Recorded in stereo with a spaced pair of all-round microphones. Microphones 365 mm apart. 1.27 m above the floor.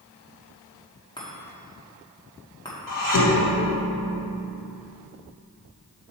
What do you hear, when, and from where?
1.2 s a chime: 10° left (ahead or behind), 1.7 m
2.9 s dishes clattering: 60° left (ahead or behind), 1.3 m